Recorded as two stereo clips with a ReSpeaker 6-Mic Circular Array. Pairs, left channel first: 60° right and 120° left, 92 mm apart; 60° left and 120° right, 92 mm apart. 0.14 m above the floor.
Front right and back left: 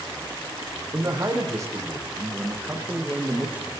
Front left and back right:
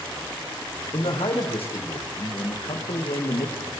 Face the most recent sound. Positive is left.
turn(degrees=45)